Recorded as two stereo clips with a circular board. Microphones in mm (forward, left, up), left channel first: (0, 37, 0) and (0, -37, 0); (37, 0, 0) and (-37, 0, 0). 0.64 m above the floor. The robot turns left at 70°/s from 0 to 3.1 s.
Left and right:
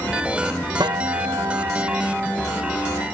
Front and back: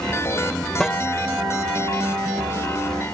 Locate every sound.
0.8 s a guitar: 80° right; by 3.0 s 125° left